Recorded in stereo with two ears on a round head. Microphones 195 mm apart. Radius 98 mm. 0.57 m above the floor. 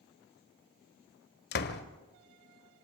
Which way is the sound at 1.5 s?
50° left (ahead or behind).